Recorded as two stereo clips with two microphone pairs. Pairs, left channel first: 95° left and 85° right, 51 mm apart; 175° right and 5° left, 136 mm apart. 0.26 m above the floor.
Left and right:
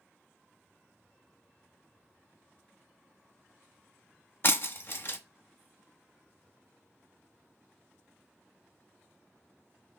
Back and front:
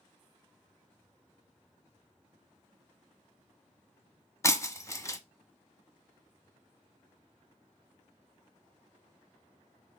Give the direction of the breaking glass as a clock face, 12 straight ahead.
8 o'clock.